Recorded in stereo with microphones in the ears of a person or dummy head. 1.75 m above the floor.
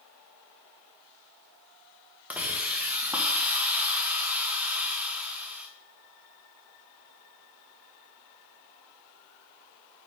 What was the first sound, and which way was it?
A hiss, 5° right (ahead or behind).